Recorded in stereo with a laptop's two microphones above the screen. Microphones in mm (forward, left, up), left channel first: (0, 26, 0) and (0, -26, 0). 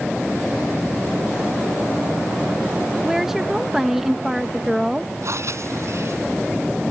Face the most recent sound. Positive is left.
turn(degrees=-65)  # may be behind; listen again after turning